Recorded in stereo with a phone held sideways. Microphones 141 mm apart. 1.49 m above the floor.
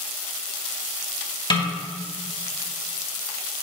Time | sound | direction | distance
1.5 | a snare drum | 35° left (ahead or behind) | 1.4 m